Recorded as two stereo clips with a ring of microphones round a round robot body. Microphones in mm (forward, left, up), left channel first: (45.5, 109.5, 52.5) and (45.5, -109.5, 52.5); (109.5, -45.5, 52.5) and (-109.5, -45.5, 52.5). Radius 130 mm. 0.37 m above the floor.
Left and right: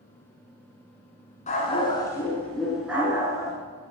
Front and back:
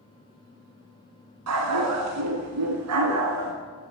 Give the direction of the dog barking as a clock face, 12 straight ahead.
7 o'clock.